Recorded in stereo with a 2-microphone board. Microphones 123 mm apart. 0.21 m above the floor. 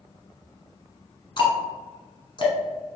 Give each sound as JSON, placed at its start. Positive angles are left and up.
{"t": 1.4, "sound": "ticking", "side_deg": 40, "distance_m": 1.1}